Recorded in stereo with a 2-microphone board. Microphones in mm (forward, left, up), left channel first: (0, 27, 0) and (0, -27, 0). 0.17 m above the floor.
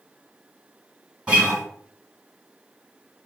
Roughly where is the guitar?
Right.